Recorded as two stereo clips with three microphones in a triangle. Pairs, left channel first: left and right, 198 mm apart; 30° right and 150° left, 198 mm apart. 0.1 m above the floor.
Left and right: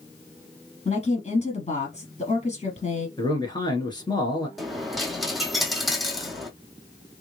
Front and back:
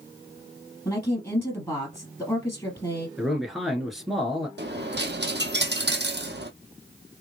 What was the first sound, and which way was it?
A woman speaking, 45° left.